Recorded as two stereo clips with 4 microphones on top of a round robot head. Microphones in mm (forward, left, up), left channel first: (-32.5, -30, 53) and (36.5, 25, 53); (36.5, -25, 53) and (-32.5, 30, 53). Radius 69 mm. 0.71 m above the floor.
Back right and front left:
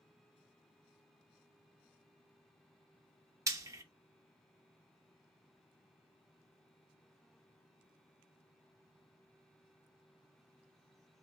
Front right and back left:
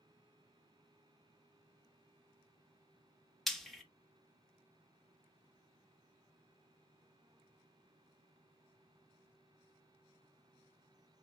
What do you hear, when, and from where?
3.5 s frying: 50° left, 1.1 m